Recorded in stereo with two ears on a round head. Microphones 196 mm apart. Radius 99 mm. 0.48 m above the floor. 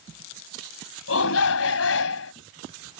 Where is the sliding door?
No sliding door in this recording.